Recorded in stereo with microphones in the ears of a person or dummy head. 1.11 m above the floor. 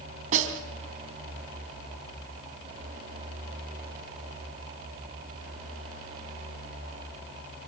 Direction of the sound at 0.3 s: 45° right (ahead or behind).